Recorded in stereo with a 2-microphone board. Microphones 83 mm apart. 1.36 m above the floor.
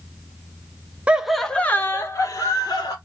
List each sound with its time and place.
1.1 s laughter: 15° right (ahead or behind), 0.5 m; by 3.0 s 50° left (ahead or behind), 1.3 m